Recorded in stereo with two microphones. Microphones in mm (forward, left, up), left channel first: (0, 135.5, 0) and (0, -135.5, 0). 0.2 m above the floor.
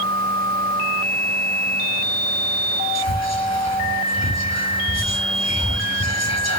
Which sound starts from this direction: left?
Whispering, at 3.0 s.